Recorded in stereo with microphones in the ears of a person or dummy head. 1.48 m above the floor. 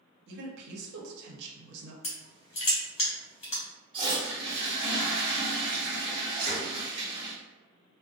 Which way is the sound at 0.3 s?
65° right (ahead or behind).